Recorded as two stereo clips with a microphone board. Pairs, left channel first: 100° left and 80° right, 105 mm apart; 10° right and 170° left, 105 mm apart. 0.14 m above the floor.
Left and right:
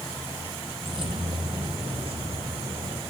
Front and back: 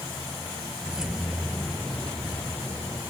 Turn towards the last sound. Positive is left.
turn(degrees=-85)